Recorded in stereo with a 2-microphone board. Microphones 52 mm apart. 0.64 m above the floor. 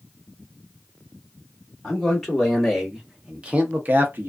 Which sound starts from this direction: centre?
A man speaking, at 1.8 s.